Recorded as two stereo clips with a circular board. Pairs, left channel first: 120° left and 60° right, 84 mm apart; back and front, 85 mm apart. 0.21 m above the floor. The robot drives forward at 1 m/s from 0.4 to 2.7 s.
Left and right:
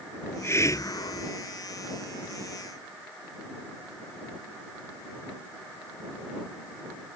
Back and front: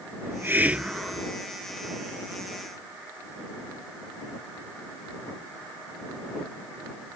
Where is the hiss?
60° left; by 1.3 s 100° left.